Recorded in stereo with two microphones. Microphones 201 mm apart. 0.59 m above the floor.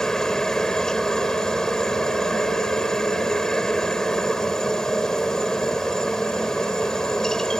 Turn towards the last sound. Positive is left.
turn(degrees=5)  # may be behind; listen again after turning